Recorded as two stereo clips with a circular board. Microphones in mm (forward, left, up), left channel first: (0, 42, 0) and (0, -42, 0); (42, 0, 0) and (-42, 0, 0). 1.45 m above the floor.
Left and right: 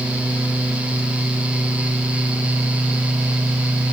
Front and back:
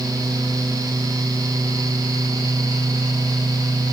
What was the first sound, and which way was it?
Only background noise.